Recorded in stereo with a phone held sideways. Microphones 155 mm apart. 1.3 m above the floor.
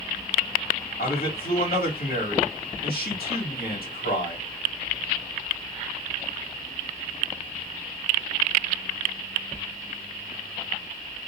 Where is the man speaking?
75° left (ahead or behind), 1.8 m.